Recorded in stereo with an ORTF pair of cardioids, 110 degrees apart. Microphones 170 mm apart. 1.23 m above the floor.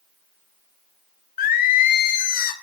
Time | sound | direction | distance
1.4 | singing | 60° left | 0.7 m